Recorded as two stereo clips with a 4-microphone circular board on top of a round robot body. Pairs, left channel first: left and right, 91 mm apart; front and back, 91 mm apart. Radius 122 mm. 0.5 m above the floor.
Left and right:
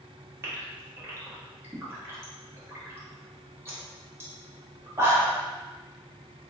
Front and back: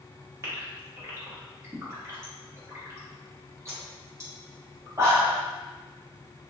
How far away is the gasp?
About 1.4 m.